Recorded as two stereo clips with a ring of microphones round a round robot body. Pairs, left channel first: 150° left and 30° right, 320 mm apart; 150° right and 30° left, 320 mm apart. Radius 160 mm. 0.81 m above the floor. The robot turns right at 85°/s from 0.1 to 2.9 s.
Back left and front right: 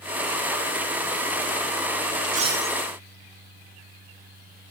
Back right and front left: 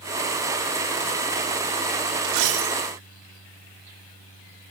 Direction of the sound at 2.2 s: 25° left.